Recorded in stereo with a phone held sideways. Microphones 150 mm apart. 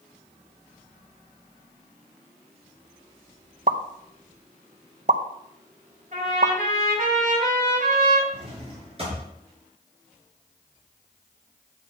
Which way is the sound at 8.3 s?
40° right (ahead or behind).